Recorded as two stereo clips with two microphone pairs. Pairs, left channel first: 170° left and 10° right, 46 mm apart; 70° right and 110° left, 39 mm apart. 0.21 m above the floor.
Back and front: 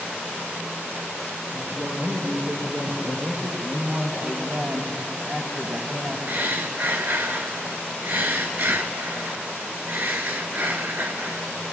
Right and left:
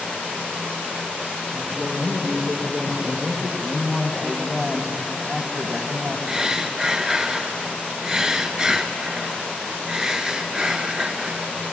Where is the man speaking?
10° left, 1.1 m.